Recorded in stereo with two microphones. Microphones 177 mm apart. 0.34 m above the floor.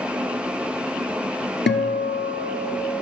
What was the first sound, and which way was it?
A guitar, 85° left.